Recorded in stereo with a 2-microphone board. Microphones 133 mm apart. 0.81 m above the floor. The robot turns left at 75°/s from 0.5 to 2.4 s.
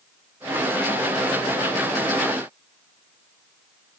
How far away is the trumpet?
No trumpet in this recording.